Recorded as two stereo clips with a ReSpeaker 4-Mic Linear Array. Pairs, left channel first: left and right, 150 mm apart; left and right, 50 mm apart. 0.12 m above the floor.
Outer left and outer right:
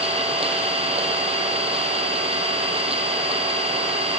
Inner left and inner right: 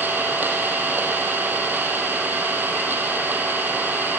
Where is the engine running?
40° right (ahead or behind), 1.4 m.